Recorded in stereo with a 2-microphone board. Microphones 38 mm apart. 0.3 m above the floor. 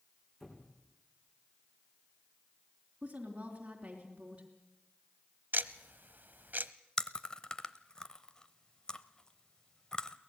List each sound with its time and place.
0.4 s a squeak: 10° left (ahead or behind), 5 m
3.0 s a woman speaking: 25° right (ahead or behind), 3.5 m
5.5 s ticking: 55° right (ahead or behind), 0.8 m
7.0 s chewing: 25° left (ahead or behind), 0.9 m